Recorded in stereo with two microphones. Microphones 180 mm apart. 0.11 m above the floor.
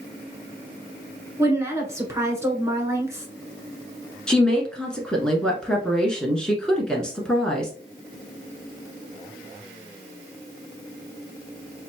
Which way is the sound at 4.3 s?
5° left (ahead or behind).